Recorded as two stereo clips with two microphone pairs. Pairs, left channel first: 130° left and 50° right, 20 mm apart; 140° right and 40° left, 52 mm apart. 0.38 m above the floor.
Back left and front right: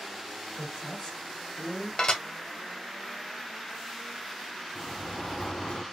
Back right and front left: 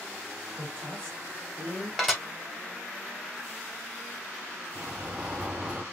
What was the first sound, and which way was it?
A woman speaking, 95° left.